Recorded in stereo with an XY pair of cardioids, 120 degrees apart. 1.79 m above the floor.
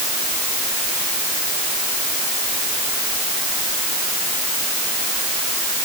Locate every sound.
Only background noise.